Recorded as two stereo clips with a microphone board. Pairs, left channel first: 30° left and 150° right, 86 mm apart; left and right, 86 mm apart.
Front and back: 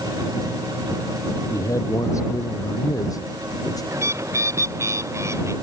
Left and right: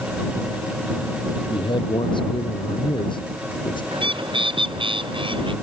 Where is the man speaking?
80° left; by 3.8 s 70° left.